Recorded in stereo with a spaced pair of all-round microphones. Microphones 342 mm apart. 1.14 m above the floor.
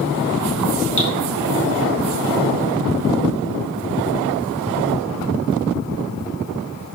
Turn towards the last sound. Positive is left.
turn(degrees=55)  # may be behind; listen again after turning